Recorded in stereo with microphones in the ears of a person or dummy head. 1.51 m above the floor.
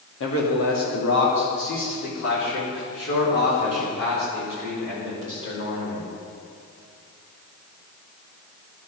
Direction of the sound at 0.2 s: 75° left (ahead or behind).